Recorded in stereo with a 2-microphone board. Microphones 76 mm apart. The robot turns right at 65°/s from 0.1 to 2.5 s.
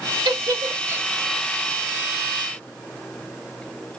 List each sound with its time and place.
0.2 s a giggle: 70° right (ahead or behind), 0.8 m; by 1.1 s 20° right (ahead or behind), 0.8 m